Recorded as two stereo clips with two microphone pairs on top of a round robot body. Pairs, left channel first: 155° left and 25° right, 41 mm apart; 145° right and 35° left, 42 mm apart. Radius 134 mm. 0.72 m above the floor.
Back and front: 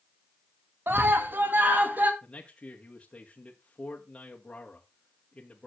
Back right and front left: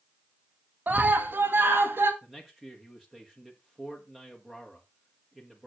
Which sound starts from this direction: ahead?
A scream, at 0.9 s.